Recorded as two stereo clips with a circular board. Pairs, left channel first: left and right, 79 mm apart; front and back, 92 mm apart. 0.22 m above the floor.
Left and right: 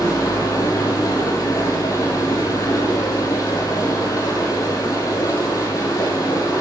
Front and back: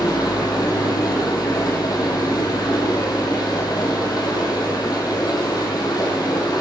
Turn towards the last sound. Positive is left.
turn(degrees=45)